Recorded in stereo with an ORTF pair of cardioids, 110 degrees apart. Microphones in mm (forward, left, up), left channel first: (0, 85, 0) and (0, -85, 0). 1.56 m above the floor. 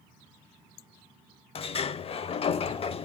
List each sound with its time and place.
1.6 s a sliding door: 35° left, 0.9 m